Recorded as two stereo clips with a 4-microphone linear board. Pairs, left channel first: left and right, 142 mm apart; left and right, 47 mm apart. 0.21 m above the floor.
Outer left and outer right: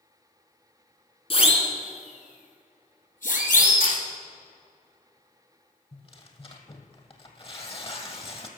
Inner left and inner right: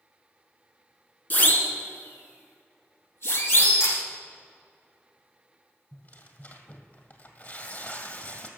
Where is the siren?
40° left (ahead or behind), 2.5 m; by 3.9 s 70° left (ahead or behind), 3.5 m.